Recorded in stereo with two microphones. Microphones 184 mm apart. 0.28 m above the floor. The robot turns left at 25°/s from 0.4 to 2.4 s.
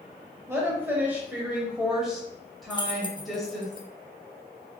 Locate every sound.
0.5 s a woman speaking: 15° right (ahead or behind), 0.9 m; by 3.7 s centre (ahead or behind), 0.9 m
2.7 s keys jangling: 25° left (ahead or behind), 0.6 m